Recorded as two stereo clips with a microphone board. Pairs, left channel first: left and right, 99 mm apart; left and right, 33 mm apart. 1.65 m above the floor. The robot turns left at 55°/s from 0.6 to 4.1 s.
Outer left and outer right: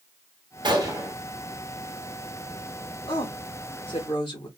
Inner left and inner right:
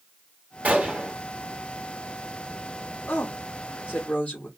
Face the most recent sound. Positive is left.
turn(degrees=50)